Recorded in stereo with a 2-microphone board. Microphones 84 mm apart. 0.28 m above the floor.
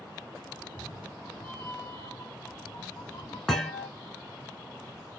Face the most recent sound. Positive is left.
turn(degrees=5)  # may be behind; listen again after turning